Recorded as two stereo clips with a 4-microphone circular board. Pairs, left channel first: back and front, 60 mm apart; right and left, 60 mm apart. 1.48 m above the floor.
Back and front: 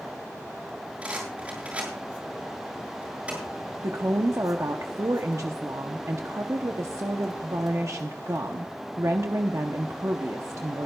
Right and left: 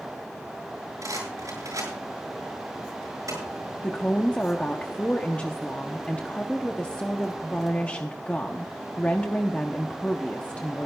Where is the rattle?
70° left, 7.5 m.